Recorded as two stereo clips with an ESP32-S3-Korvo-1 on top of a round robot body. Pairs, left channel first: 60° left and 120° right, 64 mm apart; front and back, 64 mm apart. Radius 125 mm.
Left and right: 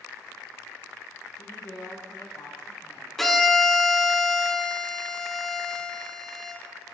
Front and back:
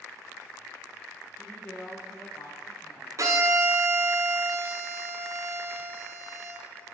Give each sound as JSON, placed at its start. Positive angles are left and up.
{"t": 1.4, "sound": "a woman speaking", "azimuth_deg": 70, "distance_m": 1.1}
{"t": 3.2, "sound": "a violin", "azimuth_deg": 145, "distance_m": 0.9}